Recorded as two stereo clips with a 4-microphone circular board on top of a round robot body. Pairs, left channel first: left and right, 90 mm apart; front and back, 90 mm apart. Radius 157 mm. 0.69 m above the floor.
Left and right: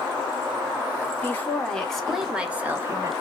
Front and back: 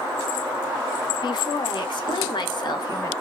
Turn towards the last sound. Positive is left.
turn(degrees=-35)